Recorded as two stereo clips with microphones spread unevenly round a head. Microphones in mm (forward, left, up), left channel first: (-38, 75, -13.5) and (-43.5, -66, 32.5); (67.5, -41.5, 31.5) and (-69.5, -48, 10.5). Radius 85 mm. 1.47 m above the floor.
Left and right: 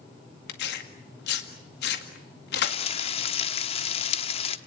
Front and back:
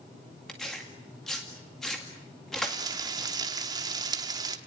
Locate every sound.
0.5 s tearing paper: 90° left, 2.0 m
2.6 s frying: 125° left, 1.1 m